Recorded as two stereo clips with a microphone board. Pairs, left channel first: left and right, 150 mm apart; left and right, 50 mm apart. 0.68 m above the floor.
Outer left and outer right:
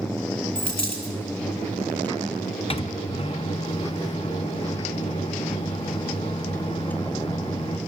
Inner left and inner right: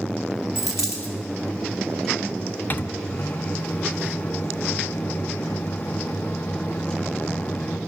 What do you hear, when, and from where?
0.6 s a dropped coin: 80° left, 4.5 m
2.7 s a microwave: 40° left (ahead or behind), 0.6 m